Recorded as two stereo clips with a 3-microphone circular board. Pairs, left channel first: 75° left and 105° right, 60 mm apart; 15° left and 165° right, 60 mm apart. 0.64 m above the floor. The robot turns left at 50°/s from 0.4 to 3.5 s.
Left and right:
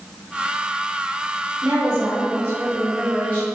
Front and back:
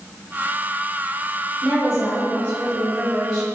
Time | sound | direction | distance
1.6 | a woman speaking | 85° right | 1.4 m